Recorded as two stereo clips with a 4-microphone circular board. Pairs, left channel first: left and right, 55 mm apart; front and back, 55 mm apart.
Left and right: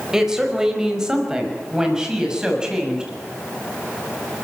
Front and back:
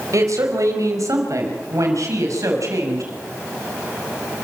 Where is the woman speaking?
170° right, 4 m; by 3.1 s 165° right, 6 m.